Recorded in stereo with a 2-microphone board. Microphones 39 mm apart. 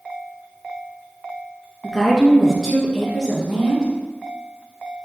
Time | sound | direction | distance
1.8 | a woman speaking | centre (ahead or behind) | 1.0 m